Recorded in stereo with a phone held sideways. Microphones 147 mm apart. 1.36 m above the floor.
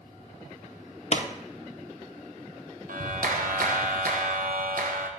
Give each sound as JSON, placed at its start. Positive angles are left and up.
{"t": 1.1, "sound": "a pop", "side_deg": 50, "distance_m": 0.6}
{"t": 2.9, "sound": "a clap", "side_deg": -75, "distance_m": 0.9}